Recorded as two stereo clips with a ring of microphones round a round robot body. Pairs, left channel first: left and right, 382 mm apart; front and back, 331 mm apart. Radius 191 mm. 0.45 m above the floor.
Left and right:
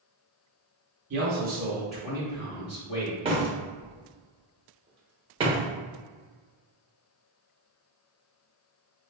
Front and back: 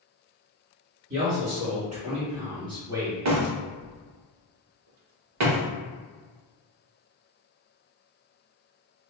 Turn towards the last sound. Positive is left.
turn(degrees=-160)